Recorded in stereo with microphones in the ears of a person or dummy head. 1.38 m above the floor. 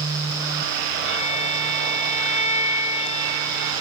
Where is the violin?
30° left (ahead or behind), 1.0 m.